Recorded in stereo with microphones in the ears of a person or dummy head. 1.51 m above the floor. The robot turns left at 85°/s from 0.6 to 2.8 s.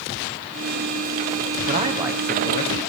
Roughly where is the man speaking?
Behind right.